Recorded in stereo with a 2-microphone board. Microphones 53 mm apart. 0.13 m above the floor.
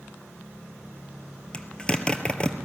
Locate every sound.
1.5 s a zipper: 20° left (ahead or behind), 1.4 m